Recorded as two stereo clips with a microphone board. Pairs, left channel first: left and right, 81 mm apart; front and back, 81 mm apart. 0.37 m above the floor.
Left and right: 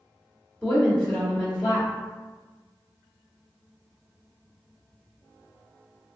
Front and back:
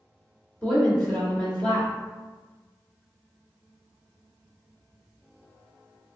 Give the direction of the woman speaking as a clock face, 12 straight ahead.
11 o'clock.